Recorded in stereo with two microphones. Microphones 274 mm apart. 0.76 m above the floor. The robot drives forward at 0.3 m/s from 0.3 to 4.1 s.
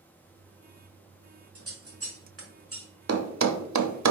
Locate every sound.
1.6 s scissors: 55° right (ahead or behind), 1.3 m; by 2.9 s 50° right (ahead or behind), 1.3 m
3.1 s a thud: 60° right (ahead or behind), 0.5 m; by 4.1 s 85° right, 0.5 m